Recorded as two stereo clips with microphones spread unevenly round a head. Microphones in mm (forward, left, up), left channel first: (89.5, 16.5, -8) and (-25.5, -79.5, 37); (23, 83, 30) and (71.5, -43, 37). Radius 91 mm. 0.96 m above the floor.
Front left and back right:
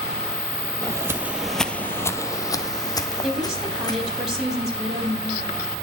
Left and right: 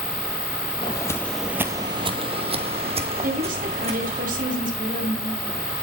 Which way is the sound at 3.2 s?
50° right.